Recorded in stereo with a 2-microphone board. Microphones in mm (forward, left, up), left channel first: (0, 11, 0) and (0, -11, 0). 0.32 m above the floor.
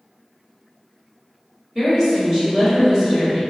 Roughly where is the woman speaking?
Right.